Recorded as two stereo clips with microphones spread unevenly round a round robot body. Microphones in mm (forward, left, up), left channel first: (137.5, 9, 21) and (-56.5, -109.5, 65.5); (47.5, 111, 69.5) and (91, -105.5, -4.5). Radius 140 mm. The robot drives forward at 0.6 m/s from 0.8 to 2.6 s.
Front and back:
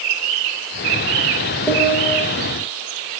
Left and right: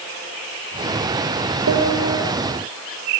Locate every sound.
1.7 s a piano: 45° right, 8.5 m; by 2.2 s 50° right, 8 m